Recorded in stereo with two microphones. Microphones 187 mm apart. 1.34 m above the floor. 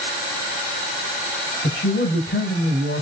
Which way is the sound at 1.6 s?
85° left.